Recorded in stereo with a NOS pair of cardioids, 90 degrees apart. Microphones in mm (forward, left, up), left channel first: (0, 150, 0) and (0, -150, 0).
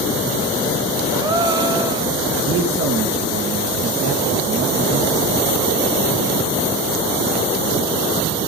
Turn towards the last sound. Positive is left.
turn(degrees=-45)